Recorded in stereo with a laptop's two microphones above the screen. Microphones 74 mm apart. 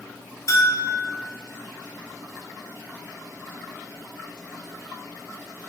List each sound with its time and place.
0.5 s a bell: 45° left (ahead or behind), 0.6 m